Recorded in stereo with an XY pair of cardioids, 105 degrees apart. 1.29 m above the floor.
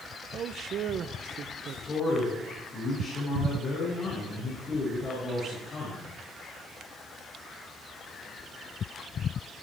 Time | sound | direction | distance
0.3 | a man speaking | 60° right | 0.7 m
1.9 | a man speaking | 45° left | 6 m